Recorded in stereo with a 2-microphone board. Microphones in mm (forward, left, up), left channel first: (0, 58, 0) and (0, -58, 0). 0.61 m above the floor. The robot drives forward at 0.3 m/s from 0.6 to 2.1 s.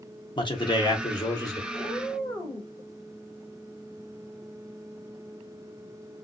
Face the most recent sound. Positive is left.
turn(degrees=15)  # may be behind; listen again after turning